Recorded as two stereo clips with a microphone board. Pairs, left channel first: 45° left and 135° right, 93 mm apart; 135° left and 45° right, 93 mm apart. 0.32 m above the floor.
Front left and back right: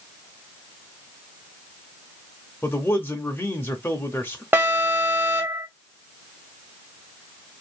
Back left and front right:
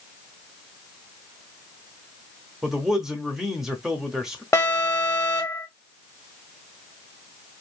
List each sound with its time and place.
2.6 s a man speaking: 30° left, 0.9 m
4.5 s an alarm: 170° left, 1.5 m